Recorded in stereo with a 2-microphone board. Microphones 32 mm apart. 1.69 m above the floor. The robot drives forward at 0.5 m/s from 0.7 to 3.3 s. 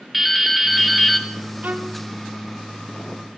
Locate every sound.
0.1 s dripping: centre (ahead or behind), 0.8 m; by 1.3 s 5° right (ahead or behind), 0.5 m
1.6 s a violin: 55° right (ahead or behind), 0.6 m; by 2.0 s 45° right (ahead or behind), 0.7 m